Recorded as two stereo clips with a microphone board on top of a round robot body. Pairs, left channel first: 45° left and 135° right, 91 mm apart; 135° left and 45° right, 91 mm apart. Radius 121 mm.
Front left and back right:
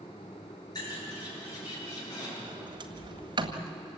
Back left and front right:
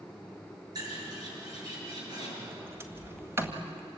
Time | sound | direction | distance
0.8 | a bird | straight ahead | 8 m
2.5 | a sliding door | 105° right | 1.9 m